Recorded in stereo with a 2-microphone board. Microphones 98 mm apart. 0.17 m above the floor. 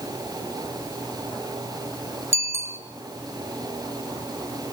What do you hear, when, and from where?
2.3 s a bicycle bell: 30° right (ahead or behind), 2 m